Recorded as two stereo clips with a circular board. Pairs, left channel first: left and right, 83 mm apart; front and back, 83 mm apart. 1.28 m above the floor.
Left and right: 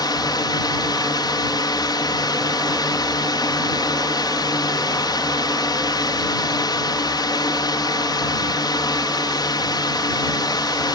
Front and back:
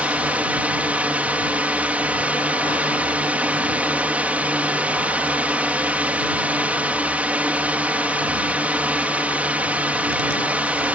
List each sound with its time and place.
0.0 s a drone: 110° left